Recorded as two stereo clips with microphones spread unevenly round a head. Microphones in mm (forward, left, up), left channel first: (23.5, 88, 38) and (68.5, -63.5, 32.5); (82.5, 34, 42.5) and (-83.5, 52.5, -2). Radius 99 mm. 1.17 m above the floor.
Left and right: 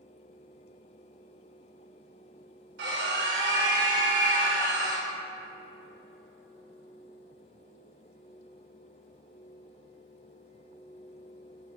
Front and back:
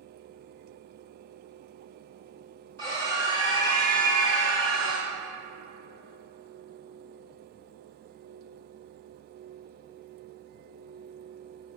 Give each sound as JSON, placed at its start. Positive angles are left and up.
{"t": 2.8, "sound": "a scream", "azimuth_deg": -85, "distance_m": 4.0}